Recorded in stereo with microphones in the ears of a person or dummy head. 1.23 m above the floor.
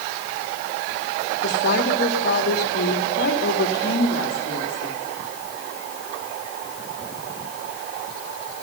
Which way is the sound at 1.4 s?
65° left (ahead or behind).